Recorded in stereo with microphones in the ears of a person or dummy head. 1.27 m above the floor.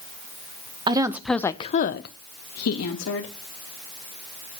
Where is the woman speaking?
25° right (ahead or behind), 1.0 m; by 3.3 s 85° left, 2 m.